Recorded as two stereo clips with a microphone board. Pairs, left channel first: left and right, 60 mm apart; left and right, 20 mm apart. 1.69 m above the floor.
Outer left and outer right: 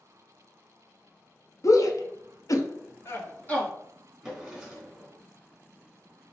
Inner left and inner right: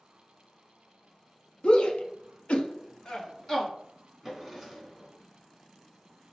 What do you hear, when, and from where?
1.6 s a shout: 55° left (ahead or behind), 0.8 m; by 3.7 s 25° left (ahead or behind), 1.2 m
4.2 s a drawer: 5° right (ahead or behind), 1.7 m